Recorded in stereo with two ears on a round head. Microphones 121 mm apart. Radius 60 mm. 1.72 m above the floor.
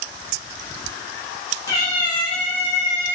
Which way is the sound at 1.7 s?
25° left (ahead or behind).